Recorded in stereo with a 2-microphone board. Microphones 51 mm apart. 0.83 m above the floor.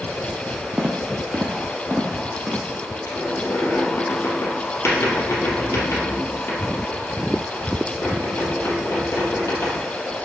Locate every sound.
0.8 s footsteps: 20° right (ahead or behind), 1.1 m; by 2.7 s 15° right (ahead or behind), 2.5 m
3.1 s a squeak: 70° left (ahead or behind), 2.5 m